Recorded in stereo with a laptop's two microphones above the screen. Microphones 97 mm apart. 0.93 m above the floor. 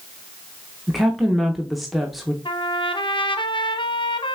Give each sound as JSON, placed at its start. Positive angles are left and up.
{"t": 0.9, "sound": "a woman speaking", "side_deg": 0, "distance_m": 0.8}
{"t": 2.5, "sound": "a trumpet", "side_deg": 55, "distance_m": 0.7}